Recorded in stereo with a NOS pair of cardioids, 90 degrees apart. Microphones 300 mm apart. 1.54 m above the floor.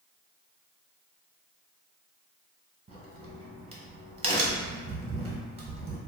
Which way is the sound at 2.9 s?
20° right.